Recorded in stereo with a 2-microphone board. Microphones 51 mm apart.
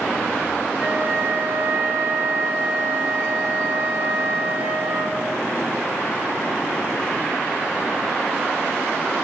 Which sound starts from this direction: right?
A flute, at 0.8 s.